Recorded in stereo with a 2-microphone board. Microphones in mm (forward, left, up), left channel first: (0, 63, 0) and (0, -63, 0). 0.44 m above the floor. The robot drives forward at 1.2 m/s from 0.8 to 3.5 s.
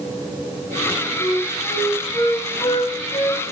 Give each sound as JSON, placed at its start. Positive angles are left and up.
{"t": 1.2, "sound": "a flute", "side_deg": 15, "distance_m": 2.5}